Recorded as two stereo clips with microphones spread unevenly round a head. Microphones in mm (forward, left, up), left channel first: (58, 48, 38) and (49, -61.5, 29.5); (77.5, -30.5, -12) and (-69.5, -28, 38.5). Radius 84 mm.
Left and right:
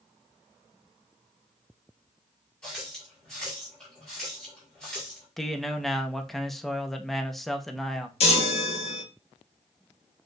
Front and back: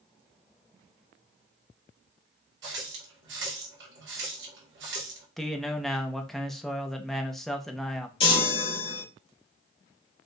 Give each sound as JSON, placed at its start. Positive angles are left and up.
{"t": 2.6, "sound": "a running tap", "azimuth_deg": 170, "distance_m": 1.8}
{"t": 5.4, "sound": "a man speaking", "azimuth_deg": -10, "distance_m": 0.8}
{"t": 8.2, "sound": "a chime", "azimuth_deg": 55, "distance_m": 1.4}